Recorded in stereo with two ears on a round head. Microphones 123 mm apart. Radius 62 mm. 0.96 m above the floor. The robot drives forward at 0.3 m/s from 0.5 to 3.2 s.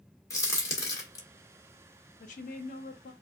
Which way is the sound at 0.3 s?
20° left (ahead or behind).